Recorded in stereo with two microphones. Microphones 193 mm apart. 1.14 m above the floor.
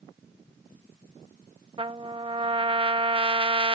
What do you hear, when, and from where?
1.8 s a trumpet: 25° right (ahead or behind)